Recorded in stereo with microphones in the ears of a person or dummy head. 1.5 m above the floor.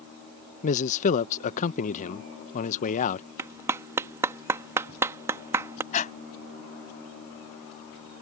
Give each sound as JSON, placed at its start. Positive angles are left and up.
{"t": 0.6, "sound": "a man speaking", "side_deg": 45}
{"t": 3.4, "sound": "a clap", "side_deg": -15}
{"t": 5.9, "sound": "breathing", "side_deg": 25}